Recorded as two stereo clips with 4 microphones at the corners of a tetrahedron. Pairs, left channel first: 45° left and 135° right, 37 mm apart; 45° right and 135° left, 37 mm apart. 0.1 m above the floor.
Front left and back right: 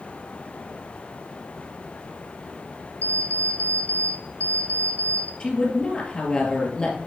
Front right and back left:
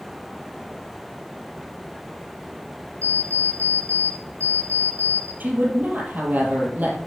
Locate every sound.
3.0 s an alarm clock: 5° left, 2.5 m
5.4 s a woman speaking: 105° left, 3 m